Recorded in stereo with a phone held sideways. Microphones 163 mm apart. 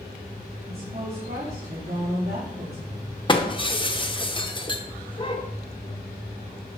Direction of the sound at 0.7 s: 65° right (ahead or behind).